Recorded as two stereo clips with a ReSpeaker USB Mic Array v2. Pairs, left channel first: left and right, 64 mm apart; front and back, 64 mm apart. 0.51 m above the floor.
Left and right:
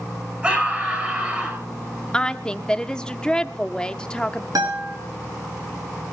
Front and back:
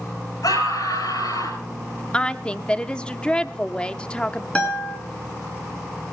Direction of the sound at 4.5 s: 75° right.